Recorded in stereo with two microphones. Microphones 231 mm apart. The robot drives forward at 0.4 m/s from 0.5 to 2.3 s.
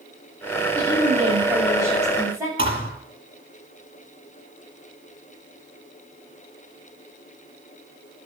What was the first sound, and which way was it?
A woman speaking, 15° right (ahead or behind).